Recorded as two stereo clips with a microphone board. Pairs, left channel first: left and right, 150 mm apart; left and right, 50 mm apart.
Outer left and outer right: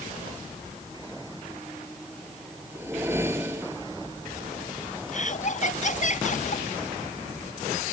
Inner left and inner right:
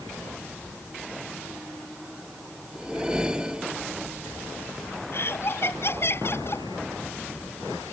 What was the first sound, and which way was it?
A whoosh, 15° right (ahead or behind).